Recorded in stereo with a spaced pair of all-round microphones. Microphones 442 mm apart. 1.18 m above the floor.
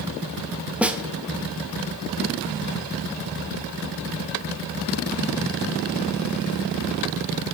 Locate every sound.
0.8 s a snare drum: 5° right (ahead or behind), 0.7 m